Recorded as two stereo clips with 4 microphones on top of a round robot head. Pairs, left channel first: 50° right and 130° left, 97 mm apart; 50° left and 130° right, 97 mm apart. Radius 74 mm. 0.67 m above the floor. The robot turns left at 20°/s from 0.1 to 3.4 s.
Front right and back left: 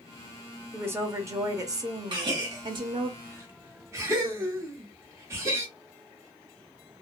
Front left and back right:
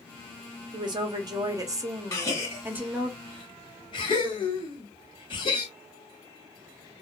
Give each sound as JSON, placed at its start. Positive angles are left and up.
{"t": 0.7, "sound": "a woman speaking", "azimuth_deg": -160, "distance_m": 0.9}
{"t": 2.1, "sound": "a gasp", "azimuth_deg": 100, "distance_m": 1.4}